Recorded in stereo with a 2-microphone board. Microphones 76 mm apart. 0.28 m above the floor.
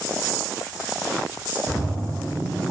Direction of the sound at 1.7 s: 5° right (ahead or behind).